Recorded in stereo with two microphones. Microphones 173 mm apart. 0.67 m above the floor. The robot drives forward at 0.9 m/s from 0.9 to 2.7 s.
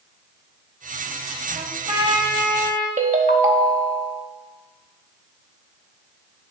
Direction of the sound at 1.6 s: 45° right (ahead or behind).